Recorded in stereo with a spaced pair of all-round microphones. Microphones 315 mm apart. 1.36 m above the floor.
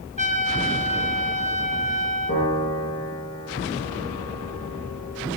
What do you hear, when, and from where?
0.2 s a trumpet: 20° left (ahead or behind), 1.2 m
2.3 s a piano: 45° left (ahead or behind), 10 m